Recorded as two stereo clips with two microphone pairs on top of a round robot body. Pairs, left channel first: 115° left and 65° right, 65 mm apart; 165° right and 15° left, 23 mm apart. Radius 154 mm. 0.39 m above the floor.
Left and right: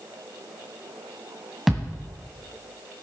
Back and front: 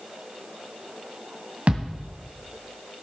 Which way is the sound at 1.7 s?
25° left.